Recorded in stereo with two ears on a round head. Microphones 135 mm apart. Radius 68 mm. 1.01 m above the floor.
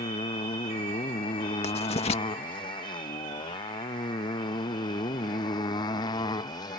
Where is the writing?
45° left (ahead or behind).